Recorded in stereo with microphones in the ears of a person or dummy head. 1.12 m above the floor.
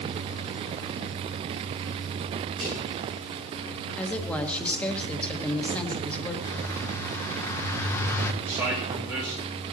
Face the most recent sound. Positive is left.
turn(degrees=-10)  # may be behind; listen again after turning